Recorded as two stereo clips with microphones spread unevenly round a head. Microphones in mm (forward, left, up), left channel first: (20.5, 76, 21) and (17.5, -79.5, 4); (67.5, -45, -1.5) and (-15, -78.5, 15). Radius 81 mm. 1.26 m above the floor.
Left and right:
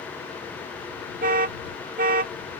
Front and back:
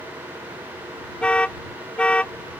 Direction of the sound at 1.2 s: 55° right.